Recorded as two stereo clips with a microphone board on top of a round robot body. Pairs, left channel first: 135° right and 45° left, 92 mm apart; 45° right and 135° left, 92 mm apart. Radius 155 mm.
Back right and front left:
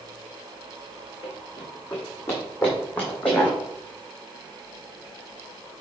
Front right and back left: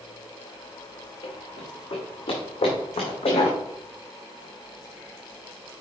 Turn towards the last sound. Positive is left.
turn(degrees=-55)